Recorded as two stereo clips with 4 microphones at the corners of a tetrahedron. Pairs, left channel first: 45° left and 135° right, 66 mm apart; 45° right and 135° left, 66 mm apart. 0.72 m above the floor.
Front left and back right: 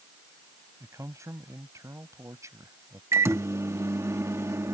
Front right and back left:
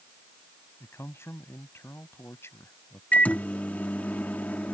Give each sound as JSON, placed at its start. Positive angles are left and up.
{"t": 0.8, "sound": "a man speaking", "azimuth_deg": -95}
{"t": 3.1, "sound": "a microwave", "azimuth_deg": -105}